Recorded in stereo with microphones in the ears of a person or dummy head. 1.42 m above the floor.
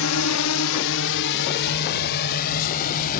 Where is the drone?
75° left (ahead or behind); by 3.2 s 45° left (ahead or behind).